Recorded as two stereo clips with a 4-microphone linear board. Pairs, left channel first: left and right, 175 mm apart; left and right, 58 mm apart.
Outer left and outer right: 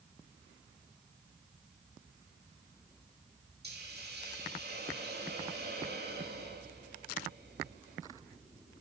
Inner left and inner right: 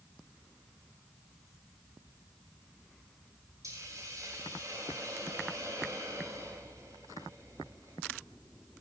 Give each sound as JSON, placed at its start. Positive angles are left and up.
{"t": 3.6, "sound": "a hiss", "side_deg": -75, "distance_m": 8.0}